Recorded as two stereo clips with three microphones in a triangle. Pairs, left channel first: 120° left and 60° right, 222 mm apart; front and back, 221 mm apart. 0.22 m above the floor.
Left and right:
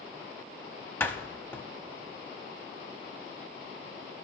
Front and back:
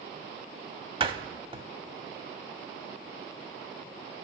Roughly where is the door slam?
Behind.